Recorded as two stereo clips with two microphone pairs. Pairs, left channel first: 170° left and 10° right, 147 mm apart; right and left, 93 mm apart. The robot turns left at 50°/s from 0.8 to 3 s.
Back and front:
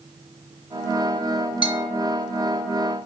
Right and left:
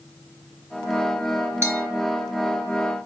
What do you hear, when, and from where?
1.6 s a bell: 135° left, 1.1 m; by 1.9 s 125° left, 1.1 m